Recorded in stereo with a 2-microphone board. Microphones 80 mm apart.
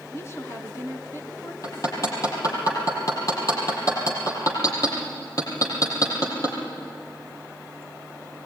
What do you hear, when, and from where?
0.1 s a woman speaking: 35° left (ahead or behind), 2.5 m
1.6 s hammering: 45° left (ahead or behind), 6.5 m